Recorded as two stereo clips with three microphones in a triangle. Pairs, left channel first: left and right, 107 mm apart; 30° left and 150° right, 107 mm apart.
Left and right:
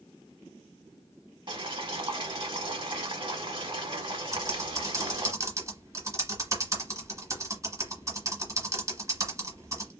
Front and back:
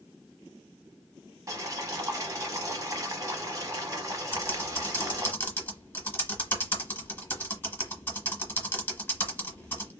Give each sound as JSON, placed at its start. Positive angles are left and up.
{"t": 1.5, "sound": "boiling", "azimuth_deg": -100, "distance_m": 0.9}
{"t": 4.3, "sound": "typing on a keyboard", "azimuth_deg": -40, "distance_m": 0.9}